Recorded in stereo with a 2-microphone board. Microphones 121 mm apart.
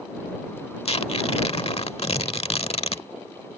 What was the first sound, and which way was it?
Tearing paper, 55° left (ahead or behind).